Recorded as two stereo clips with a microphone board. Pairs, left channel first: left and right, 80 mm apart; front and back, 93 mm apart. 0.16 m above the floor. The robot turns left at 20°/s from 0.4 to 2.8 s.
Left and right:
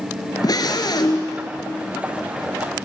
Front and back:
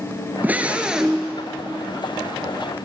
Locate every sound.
0.4 s a scream: 110° left, 2 m; by 1.3 s 90° left, 2 m